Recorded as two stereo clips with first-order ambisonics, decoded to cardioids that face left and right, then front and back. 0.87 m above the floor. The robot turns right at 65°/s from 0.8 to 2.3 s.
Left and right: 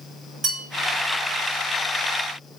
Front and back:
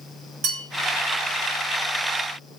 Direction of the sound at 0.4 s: 155° right.